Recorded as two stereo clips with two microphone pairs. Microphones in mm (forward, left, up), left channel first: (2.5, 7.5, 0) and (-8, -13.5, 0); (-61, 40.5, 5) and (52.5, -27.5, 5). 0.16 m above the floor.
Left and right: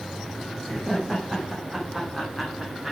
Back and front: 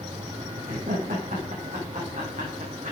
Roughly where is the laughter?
Ahead right.